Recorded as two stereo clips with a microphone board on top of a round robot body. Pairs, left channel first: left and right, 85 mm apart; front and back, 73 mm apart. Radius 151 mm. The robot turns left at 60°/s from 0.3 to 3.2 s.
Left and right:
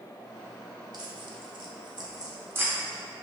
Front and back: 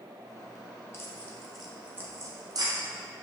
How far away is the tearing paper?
About 0.9 m.